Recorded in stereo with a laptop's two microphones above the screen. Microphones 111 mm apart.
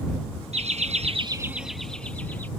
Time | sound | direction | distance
0.5 | laughter | 70° right (ahead or behind) | ?